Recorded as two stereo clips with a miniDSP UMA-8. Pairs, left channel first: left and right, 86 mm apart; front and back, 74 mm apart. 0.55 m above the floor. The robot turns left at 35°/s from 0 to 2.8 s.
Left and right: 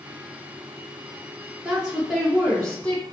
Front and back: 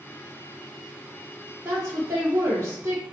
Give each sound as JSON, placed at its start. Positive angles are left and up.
{"t": 1.6, "sound": "a woman speaking", "azimuth_deg": -160, "distance_m": 1.3}